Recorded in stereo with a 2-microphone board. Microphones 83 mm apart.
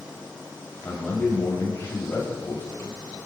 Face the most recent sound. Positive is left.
turn(degrees=30)  # may be behind; listen again after turning